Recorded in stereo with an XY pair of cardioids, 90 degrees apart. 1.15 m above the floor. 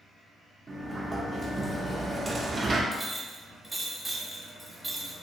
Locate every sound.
0.7 s a sliding door: 35° right, 0.5 m
2.9 s a clink: 20° right, 0.9 m